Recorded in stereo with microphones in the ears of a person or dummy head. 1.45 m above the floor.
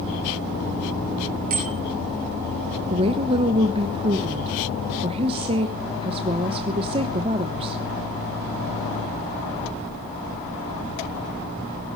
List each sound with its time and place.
1.5 s a bicycle bell: 45° right (ahead or behind), 5.5 m
2.9 s a woman speaking: 30° right (ahead or behind), 1.1 m